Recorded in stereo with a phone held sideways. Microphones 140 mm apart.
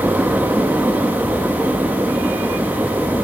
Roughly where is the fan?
Centre.